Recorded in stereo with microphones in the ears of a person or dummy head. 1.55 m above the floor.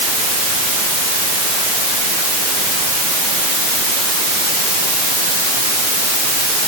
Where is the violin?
I don't hear a violin.